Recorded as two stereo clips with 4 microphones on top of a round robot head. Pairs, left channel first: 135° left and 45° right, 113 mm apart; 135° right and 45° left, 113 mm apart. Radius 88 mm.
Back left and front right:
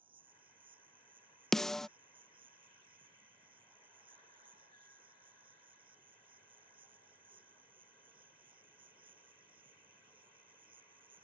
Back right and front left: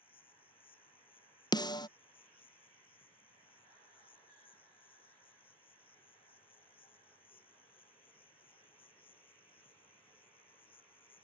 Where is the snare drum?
140° right.